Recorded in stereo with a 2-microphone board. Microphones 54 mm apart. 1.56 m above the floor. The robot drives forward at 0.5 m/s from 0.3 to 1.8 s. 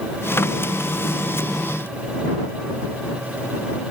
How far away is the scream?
No scream in this recording.